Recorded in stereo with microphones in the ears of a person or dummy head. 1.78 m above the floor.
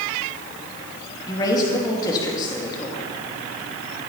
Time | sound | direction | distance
1.3 | a woman speaking | 20° left (ahead or behind) | 2.5 m